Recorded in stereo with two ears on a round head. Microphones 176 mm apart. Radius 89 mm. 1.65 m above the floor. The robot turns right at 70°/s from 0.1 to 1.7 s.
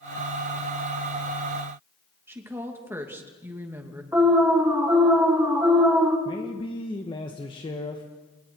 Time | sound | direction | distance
2.3 | a woman speaking | 10° right (ahead or behind) | 2.5 m
4.1 | an alarm | 10° right (ahead or behind) | 3 m
6.2 | a man speaking | 25° left (ahead or behind) | 1.5 m